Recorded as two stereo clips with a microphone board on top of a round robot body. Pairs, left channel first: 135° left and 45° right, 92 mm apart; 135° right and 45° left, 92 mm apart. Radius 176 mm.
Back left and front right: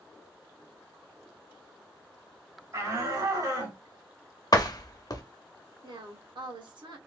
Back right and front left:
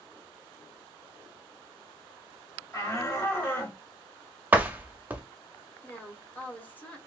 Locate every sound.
2.7 s a shout: 90° right, 2.5 m; by 3.8 s 75° right, 2 m
4.5 s a door slam: 110° left, 0.9 m
5.8 s a woman speaking: 65° right, 1.5 m